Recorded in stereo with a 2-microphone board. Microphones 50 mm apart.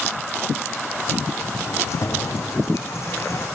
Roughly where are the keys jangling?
Left.